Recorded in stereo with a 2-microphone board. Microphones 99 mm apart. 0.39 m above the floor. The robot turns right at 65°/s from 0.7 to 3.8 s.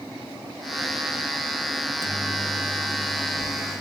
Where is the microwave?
40° right, 2.5 m; by 3.8 s 90° left, 2.5 m.